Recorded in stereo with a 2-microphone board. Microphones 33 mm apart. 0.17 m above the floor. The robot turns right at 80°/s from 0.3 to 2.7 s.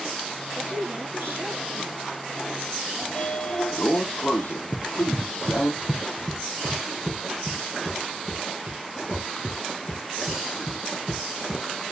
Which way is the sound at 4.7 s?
30° left (ahead or behind).